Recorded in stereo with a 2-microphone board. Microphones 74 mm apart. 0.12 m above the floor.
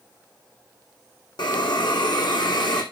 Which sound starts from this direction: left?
A hiss, at 1.4 s.